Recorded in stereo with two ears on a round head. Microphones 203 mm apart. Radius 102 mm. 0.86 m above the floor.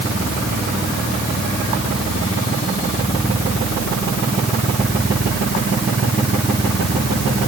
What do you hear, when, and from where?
Only background noise.